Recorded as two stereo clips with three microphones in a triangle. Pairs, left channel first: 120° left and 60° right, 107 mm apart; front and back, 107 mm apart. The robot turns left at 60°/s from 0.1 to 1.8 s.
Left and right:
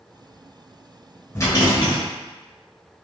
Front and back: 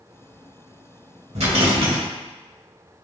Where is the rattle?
Straight behind, 1.4 m; by 2.0 s 155° left, 1.4 m.